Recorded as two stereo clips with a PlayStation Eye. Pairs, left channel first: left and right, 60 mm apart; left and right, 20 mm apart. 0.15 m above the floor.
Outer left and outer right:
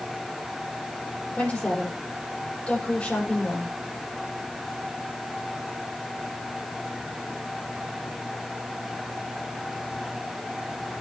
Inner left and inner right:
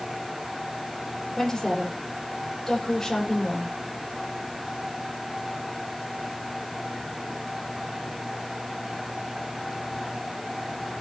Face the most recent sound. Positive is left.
turn(degrees=20)  # may be behind; listen again after turning